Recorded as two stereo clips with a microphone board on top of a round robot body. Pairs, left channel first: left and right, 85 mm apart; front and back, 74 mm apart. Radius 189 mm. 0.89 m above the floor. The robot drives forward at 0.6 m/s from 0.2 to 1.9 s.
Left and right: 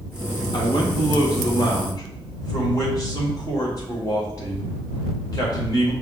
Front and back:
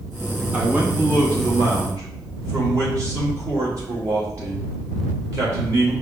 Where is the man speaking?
115° left, 1.5 m; by 5.9 s 135° left, 2.0 m.